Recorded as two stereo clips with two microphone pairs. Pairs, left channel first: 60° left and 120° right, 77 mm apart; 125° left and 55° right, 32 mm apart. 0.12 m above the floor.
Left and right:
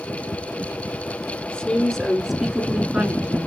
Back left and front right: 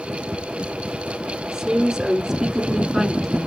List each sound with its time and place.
1.5 s a woman speaking: 5° right, 1.2 m; by 3.5 s 135° right, 1.1 m